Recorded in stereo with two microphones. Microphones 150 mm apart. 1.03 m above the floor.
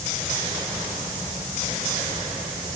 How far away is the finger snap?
No finger snap in this recording.